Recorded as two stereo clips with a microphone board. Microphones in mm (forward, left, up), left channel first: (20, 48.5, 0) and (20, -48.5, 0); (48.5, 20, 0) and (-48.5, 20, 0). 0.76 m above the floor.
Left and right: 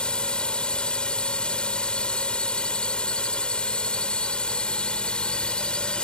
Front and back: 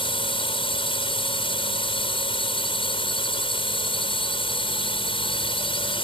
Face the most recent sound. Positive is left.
turn(degrees=10)